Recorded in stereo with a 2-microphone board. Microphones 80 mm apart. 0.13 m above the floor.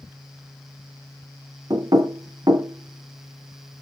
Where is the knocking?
55° right (ahead or behind), 1.3 m.